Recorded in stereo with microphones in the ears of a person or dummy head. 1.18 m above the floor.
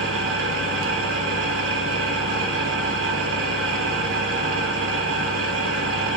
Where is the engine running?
80° right, 2.5 m.